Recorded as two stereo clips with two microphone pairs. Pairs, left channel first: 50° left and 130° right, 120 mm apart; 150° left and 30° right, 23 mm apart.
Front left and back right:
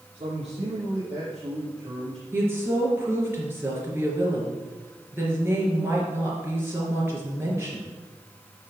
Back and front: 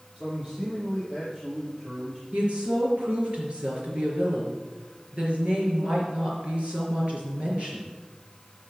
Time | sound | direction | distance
0.1 | a man speaking | 95° right | 6 m
2.3 | a woman speaking | 60° right | 4 m